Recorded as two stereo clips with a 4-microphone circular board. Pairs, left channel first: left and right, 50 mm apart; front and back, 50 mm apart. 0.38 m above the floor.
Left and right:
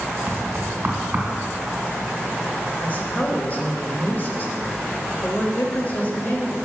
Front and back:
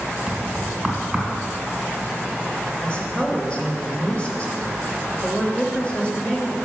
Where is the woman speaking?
55° left, 1.2 m.